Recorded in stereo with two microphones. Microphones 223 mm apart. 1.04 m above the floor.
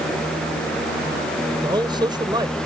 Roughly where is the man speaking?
Centre.